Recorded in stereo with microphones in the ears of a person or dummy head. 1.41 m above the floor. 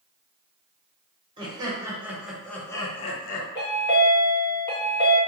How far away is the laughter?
About 1.0 m.